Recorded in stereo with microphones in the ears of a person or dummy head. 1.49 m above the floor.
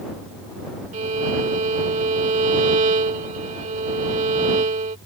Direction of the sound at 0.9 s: 35° right (ahead or behind).